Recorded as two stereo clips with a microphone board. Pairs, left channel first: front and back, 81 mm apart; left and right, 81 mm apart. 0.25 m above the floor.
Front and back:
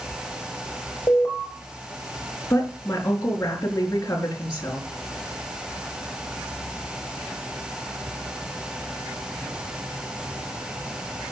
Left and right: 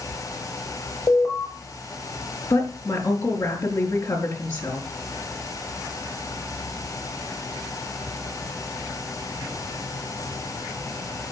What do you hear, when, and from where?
1.1 s an alarm: 50° left, 5.5 m
2.5 s a woman speaking: 55° left, 4.5 m